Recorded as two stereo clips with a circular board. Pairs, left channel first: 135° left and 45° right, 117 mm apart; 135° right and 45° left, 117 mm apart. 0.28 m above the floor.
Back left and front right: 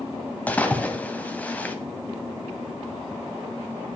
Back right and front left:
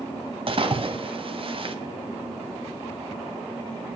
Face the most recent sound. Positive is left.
turn(degrees=60)